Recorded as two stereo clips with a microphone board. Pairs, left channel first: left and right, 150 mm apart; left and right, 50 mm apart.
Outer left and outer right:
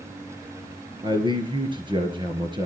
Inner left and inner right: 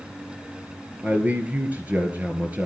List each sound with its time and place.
1.0 s a man speaking: 30° right (ahead or behind), 2 m